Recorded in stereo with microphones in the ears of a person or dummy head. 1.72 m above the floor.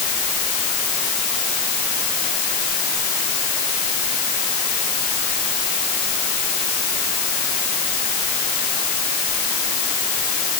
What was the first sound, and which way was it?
Only background noise.